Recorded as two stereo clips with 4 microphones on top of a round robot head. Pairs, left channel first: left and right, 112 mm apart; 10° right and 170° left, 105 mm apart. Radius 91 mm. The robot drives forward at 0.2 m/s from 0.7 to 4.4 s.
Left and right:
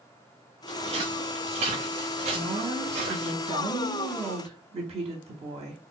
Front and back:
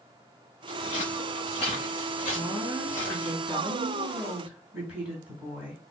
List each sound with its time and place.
0.7 s footsteps: 45° right, 3 m; by 3.3 s 85° right, 3.5 m
2.3 s a woman speaking: 105° right, 2.5 m; by 5.8 s 115° right, 2.5 m